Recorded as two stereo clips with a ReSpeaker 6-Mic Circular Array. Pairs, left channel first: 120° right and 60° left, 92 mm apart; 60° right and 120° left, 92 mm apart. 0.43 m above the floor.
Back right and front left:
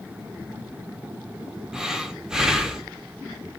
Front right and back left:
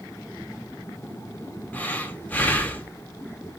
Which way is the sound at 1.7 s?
15° right.